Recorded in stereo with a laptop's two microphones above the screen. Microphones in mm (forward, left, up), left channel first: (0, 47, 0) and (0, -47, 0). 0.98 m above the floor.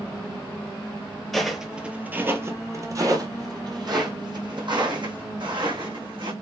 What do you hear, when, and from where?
1.3 s footsteps: 5° left (ahead or behind), 1.0 m; by 6.3 s 65° right (ahead or behind), 2.5 m